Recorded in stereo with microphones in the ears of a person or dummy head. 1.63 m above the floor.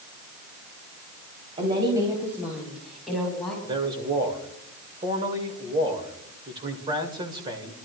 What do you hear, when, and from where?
1.6 s a woman speaking: 30° right (ahead or behind), 3 m; by 3.5 s 5° left (ahead or behind), 5 m
3.6 s a man speaking: 25° right (ahead or behind), 2 m